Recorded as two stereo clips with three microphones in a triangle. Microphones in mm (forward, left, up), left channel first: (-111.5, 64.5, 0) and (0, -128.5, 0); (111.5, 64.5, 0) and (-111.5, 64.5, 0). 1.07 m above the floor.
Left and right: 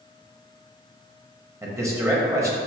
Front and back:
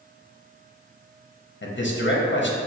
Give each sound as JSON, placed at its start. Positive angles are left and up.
{"t": 1.6, "sound": "a man speaking", "azimuth_deg": 15, "distance_m": 0.7}